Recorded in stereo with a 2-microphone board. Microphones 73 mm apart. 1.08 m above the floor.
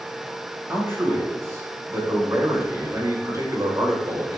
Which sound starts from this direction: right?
A man speaking, at 0.7 s.